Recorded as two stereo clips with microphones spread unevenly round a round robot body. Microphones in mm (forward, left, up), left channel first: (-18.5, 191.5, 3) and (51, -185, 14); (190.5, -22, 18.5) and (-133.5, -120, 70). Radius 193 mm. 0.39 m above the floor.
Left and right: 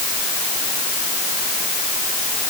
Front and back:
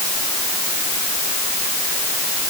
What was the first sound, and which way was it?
Only background noise.